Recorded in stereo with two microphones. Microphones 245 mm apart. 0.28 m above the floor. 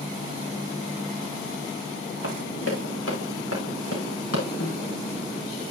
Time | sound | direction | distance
2.2 | running footsteps | 60° left (ahead or behind) | 6 m
4.6 | a snare drum | 55° left (ahead or behind) | 3.5 m